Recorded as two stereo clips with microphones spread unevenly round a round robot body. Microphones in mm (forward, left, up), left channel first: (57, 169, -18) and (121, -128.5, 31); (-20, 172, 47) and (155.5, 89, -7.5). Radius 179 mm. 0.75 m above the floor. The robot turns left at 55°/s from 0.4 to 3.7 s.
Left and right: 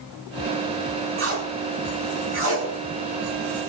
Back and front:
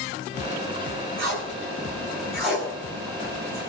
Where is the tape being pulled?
30° right, 8.5 m; by 3.6 s 165° right, 8.5 m.